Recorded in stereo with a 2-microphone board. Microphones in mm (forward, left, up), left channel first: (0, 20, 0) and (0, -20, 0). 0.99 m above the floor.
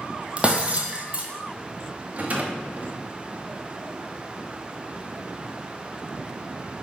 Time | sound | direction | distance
0.4 | breaking glass | 25° right (ahead or behind) | 1.4 m
2.1 | a rattle | 40° right (ahead or behind) | 1.0 m